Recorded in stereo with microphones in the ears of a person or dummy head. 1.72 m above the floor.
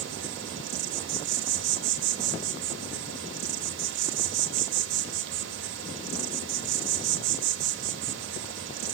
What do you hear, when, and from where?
0.0 s an insect: 65° right (ahead or behind), 0.9 m